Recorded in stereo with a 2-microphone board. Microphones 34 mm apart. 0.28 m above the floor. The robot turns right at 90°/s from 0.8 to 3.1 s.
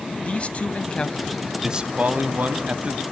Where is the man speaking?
125° left, 1.6 m; by 3.0 s 35° right, 1.6 m.